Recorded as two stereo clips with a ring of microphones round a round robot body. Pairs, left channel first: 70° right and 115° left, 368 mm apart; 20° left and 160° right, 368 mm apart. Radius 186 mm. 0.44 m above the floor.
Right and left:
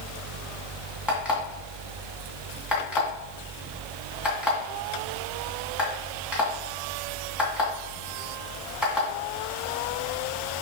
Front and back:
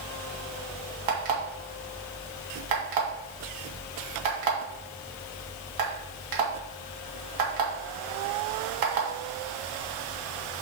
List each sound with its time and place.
1.1 s an alarm clock: 160° right, 2.5 m